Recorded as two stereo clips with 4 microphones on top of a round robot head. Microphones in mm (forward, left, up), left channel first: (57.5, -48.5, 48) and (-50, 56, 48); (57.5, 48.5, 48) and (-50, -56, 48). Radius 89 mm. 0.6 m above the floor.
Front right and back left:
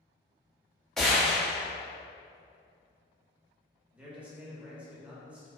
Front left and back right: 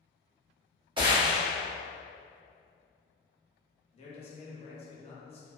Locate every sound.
1.0 s a gunshot: 130° right, 1.0 m
3.9 s a man speaking: 60° left, 0.7 m